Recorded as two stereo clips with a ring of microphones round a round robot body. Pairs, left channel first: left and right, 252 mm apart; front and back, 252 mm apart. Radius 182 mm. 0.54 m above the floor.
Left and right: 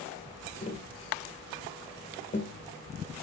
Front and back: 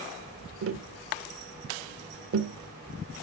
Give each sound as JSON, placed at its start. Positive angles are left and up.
{"t": 0.6, "sound": "tapping", "azimuth_deg": 155, "distance_m": 1.6}